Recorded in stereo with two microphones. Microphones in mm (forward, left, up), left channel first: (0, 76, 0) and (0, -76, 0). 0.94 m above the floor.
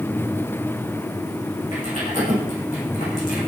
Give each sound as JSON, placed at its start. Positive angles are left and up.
{"t": 1.7, "sound": "typing on a keyboard", "side_deg": 55, "distance_m": 9.5}